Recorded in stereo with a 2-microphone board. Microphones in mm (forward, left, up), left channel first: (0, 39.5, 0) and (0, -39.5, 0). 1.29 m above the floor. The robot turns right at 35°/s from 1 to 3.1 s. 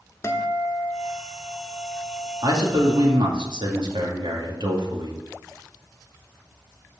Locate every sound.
0.2 s a guitar: 50° left, 1.1 m; by 3.2 s 125° left, 1.1 m
2.4 s a man speaking: 55° right (ahead or behind), 2 m; by 5.2 s 75° right (ahead or behind), 2 m